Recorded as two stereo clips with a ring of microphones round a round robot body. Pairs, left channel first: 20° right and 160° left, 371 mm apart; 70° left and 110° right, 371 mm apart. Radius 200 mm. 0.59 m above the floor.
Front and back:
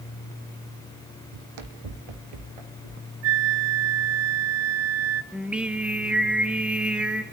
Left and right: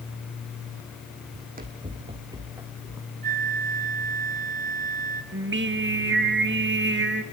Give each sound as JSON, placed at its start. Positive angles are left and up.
{"t": 1.3, "sound": "running footsteps", "azimuth_deg": -175, "distance_m": 1.6}
{"t": 3.2, "sound": "a flute", "azimuth_deg": 180, "distance_m": 0.9}
{"t": 5.3, "sound": "singing", "azimuth_deg": -120, "distance_m": 1.3}